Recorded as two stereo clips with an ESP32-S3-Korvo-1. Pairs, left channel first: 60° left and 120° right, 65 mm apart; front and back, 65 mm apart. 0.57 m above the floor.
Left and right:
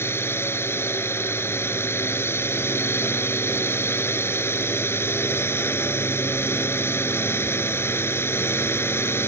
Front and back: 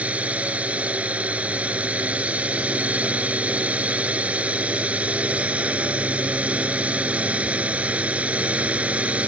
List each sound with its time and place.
0.0 s a drone: 110° left